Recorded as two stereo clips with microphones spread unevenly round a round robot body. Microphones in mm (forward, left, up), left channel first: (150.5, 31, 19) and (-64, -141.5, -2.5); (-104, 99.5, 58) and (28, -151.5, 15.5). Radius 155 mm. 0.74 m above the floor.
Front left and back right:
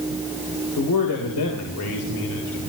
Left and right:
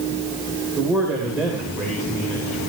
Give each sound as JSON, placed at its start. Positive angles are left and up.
{"t": 0.8, "sound": "a man speaking", "azimuth_deg": 20, "distance_m": 4.0}